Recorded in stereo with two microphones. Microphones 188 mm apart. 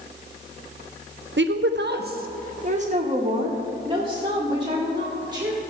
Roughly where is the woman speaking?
Right.